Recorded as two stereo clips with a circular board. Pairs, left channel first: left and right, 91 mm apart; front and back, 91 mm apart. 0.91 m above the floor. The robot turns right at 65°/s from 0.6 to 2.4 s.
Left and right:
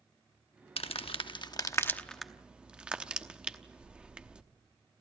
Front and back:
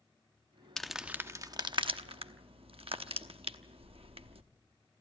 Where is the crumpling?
85° left, 0.9 m; by 4.4 s 170° right, 0.9 m.